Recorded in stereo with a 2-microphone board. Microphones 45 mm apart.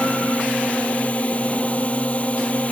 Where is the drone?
35° left (ahead or behind).